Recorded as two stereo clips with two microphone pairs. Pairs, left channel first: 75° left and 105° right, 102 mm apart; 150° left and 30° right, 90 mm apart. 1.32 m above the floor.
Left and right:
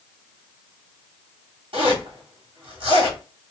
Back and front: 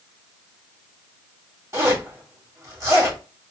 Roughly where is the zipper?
Right.